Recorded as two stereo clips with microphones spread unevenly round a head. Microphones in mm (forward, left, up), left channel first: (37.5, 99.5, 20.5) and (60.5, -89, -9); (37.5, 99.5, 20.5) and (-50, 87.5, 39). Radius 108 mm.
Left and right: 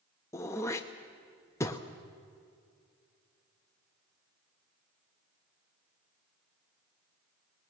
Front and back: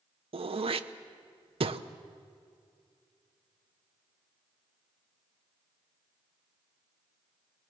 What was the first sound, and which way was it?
Throat clearing, 175° left.